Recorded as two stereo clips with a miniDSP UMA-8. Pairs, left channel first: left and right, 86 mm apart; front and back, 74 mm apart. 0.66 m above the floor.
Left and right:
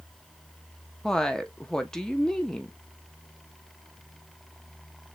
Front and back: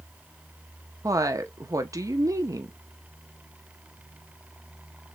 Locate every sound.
1.0 s a woman speaking: 170° left, 0.8 m